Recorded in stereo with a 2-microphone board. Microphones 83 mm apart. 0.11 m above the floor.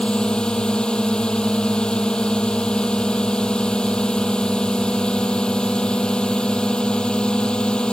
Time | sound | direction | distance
0.0 | a drone | 10° left (ahead or behind) | ?